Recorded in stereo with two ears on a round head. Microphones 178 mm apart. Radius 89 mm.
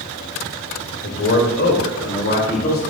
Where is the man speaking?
60° left (ahead or behind), 2 m; by 2.8 s 45° left (ahead or behind), 2.5 m.